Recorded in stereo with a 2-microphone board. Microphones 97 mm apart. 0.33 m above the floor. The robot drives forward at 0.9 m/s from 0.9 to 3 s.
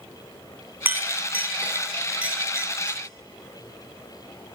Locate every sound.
0.8 s a clink: 20° right (ahead or behind), 1.9 m; by 3.0 s 10° right (ahead or behind), 3.5 m